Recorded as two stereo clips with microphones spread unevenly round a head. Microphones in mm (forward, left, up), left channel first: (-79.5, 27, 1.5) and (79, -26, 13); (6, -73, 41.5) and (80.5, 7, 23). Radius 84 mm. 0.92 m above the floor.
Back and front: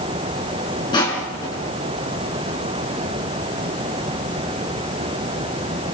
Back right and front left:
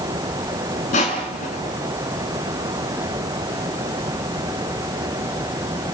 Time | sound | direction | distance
0.9 | crushing | 135° right | 5.5 m